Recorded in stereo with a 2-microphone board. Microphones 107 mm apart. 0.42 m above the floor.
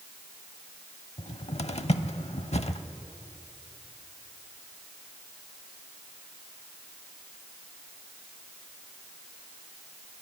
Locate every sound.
1.2 s a cupboard door: 75° left (ahead or behind), 0.6 m